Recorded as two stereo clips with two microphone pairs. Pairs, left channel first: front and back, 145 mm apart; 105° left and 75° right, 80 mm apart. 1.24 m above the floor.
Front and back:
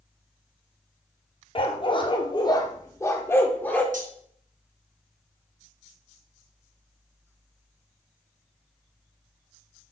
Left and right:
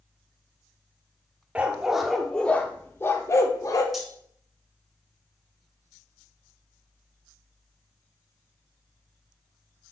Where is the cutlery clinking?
160° right, 1.3 m.